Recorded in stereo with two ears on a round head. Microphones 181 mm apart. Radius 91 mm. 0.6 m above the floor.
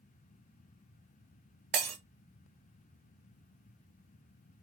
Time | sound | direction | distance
1.7 | breaking glass | 60° right (ahead or behind) | 1.0 m